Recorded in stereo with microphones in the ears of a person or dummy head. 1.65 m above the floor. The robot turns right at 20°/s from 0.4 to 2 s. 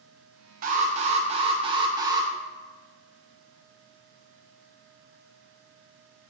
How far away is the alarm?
About 1.7 m.